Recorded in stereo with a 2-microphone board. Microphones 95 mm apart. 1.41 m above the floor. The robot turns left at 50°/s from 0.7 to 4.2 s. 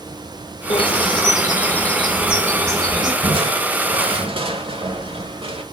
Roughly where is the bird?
Left.